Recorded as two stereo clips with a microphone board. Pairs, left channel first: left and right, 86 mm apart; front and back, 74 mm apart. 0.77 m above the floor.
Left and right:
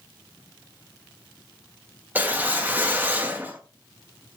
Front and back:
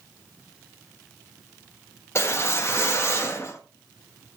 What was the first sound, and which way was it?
A whoosh, 30° right.